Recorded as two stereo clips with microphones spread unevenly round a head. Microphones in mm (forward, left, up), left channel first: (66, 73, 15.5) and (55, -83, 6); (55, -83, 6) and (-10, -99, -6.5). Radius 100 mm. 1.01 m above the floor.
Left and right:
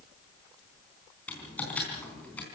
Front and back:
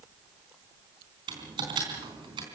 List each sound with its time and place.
1.3 s typing on a keyboard: 170° left, 3.5 m